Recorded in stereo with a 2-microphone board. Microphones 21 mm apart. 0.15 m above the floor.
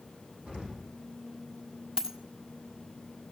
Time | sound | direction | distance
0.5 | an explosion | 70° right (ahead or behind) | 7.5 m
2.0 | a dropped coin | 30° right (ahead or behind) | 1.5 m